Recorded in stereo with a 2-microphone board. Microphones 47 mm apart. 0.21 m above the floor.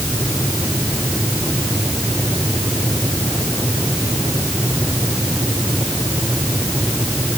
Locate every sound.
Only background noise.